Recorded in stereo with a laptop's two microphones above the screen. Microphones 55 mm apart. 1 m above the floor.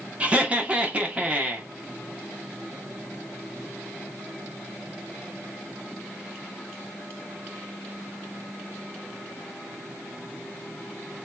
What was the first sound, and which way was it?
Laughter, 20° right (ahead or behind).